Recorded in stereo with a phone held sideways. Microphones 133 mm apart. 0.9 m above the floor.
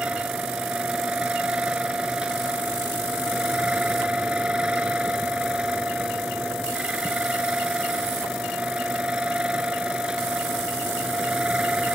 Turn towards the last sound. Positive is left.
turn(degrees=-5)  # may be behind; listen again after turning